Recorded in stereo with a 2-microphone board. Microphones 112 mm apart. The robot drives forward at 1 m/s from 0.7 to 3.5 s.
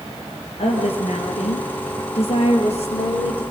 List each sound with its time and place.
0.6 s a woman speaking: 70° left (ahead or behind), 4.5 m; by 3.4 s 60° left (ahead or behind), 4.5 m